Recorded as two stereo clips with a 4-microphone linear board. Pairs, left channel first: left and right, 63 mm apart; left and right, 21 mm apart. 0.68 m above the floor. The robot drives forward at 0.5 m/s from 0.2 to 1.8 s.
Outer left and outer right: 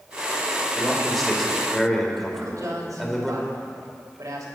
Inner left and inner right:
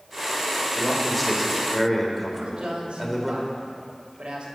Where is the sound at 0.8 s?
Centre (ahead or behind), 3 m.